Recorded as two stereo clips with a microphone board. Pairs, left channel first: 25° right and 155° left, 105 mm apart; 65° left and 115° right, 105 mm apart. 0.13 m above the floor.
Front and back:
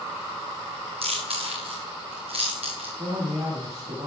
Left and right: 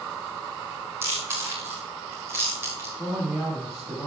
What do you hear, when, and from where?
1.0 s chewing: straight behind, 6 m
3.0 s a man speaking: 170° left, 9 m